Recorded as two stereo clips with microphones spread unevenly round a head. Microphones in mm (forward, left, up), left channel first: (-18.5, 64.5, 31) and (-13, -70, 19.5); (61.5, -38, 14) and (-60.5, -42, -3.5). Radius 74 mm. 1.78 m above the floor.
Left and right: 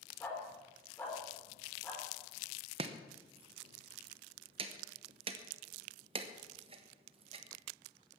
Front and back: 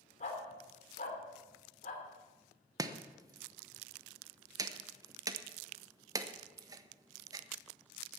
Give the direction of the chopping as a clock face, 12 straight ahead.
4 o'clock.